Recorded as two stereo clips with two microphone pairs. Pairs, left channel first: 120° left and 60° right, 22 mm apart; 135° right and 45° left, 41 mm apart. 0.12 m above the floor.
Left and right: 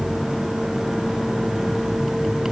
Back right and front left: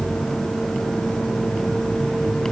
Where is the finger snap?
I don't hear a finger snap.